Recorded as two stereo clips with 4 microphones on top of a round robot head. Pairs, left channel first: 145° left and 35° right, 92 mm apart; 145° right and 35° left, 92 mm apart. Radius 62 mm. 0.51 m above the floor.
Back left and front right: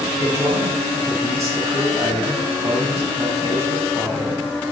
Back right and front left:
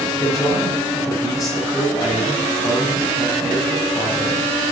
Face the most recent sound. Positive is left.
turn(degrees=-90)